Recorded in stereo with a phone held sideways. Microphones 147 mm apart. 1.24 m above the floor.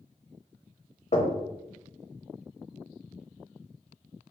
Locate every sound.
1.1 s knocking: 50° left (ahead or behind), 0.8 m